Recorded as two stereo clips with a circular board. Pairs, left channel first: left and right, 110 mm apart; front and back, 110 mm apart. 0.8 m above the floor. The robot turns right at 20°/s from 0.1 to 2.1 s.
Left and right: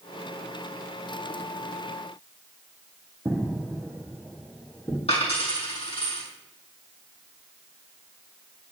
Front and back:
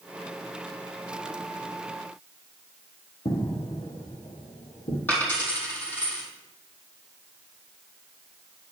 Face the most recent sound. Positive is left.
turn(degrees=70)